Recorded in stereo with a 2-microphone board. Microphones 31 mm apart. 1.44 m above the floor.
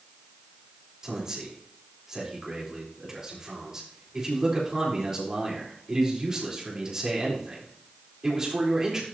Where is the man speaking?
20° right (ahead or behind), 4 m.